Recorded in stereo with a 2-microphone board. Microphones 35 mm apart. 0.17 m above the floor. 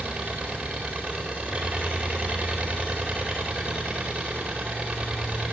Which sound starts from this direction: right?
An engine running, at 0.0 s.